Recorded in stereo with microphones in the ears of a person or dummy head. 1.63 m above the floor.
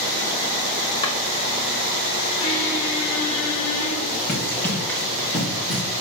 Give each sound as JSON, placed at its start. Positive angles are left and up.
{"t": 1.0, "sound": "a drawer", "side_deg": 35, "distance_m": 1.8}
{"t": 2.4, "sound": "a squeak", "side_deg": 70, "distance_m": 4.5}
{"t": 4.3, "sound": "running footsteps", "side_deg": 10, "distance_m": 5.0}